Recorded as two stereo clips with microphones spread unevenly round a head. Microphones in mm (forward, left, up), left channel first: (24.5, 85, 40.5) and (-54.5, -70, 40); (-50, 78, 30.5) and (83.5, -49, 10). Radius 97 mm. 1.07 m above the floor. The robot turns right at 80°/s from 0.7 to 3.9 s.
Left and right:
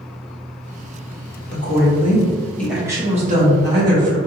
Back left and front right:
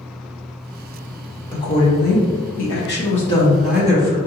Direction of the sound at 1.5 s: 60° left.